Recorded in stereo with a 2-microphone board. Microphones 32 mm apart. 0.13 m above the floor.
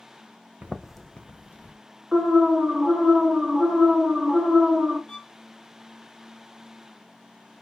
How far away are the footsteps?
About 0.6 m.